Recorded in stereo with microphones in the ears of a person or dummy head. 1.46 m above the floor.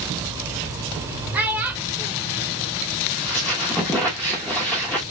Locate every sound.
1.3 s a child speaking: 10° right (ahead or behind), 0.9 m
3.1 s a squeak: 5° left (ahead or behind), 0.8 m